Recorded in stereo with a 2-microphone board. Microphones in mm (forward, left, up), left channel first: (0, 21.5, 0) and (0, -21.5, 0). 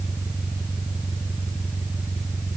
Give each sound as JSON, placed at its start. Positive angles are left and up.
{"t": 0.0, "sound": "an engine running", "side_deg": -30}